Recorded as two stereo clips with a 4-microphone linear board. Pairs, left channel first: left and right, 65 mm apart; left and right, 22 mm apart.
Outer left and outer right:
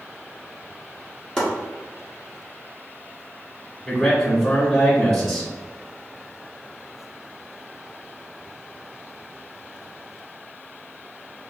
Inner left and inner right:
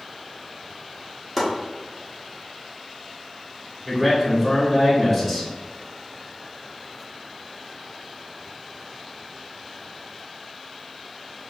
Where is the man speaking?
5° left (ahead or behind), 1.8 m.